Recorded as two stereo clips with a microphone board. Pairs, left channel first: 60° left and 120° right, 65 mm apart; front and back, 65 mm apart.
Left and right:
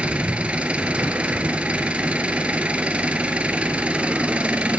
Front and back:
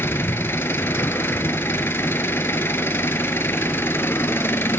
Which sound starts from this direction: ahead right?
An engine running, at 0.0 s.